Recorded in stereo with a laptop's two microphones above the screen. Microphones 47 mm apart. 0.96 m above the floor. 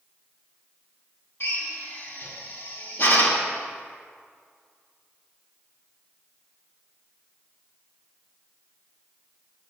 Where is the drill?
55° left (ahead or behind), 1.6 m.